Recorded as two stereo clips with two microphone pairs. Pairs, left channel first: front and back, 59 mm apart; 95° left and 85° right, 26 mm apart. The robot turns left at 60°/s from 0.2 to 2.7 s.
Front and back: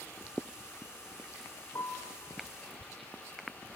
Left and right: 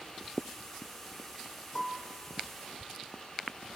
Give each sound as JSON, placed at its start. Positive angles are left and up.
{"t": 1.8, "sound": "a piano", "azimuth_deg": 30, "distance_m": 4.0}